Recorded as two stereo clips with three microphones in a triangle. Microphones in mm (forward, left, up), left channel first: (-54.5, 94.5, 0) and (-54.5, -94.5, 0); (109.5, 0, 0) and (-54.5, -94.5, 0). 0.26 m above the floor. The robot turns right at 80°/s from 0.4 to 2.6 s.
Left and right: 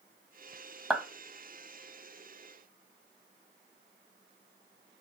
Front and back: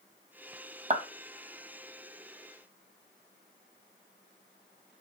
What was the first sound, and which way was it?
A clap, straight behind.